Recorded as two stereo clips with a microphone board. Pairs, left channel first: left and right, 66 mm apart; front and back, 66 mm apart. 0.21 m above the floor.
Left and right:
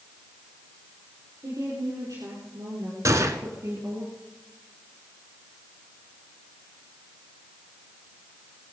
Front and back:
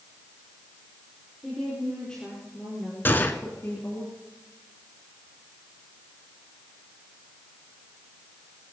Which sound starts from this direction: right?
A woman speaking, at 1.4 s.